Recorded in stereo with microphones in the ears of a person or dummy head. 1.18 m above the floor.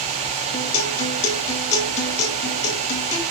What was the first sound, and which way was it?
A guitar, 35° left (ahead or behind).